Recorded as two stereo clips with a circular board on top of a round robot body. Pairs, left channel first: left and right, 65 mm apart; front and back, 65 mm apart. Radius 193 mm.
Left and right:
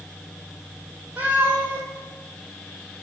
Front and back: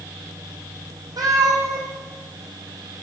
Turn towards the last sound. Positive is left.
turn(degrees=-155)